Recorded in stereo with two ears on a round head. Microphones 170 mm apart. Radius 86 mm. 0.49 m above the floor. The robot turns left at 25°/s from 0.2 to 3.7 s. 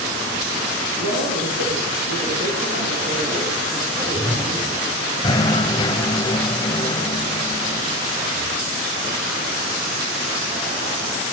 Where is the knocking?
20° left (ahead or behind), 1.9 m.